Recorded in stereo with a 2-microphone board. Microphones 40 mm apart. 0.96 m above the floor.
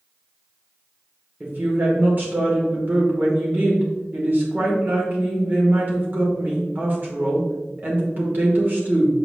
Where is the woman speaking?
45° right (ahead or behind), 2.5 m.